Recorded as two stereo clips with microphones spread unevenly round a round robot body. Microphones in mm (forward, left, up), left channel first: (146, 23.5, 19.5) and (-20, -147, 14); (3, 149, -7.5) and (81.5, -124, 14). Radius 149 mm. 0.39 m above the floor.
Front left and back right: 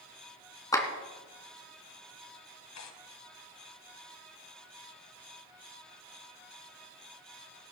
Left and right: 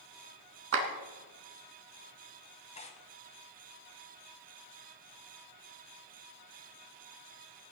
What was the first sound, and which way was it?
A clap, 30° right.